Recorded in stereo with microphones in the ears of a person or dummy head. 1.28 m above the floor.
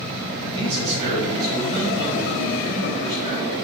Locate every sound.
0.5 s a man speaking: 30° right (ahead or behind), 1.7 m; by 3.5 s 65° right (ahead or behind), 3 m